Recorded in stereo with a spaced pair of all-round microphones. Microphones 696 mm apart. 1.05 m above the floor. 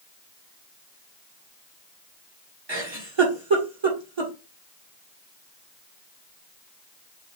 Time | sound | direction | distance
2.7 | a giggle | 40° right (ahead or behind) | 1.5 m